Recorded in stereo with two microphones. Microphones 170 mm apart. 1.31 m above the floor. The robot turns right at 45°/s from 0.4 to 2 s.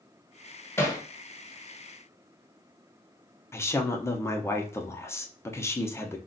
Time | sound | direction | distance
0.8 | hammering | 15° left (ahead or behind) | 0.7 m
3.5 | a woman speaking | 15° left (ahead or behind) | 0.6 m